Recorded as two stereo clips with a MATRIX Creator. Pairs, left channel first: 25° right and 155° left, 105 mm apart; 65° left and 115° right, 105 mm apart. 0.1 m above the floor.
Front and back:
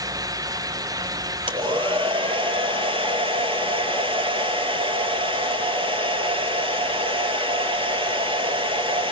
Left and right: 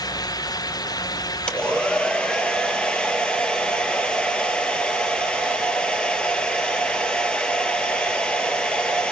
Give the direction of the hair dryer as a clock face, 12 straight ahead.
7 o'clock.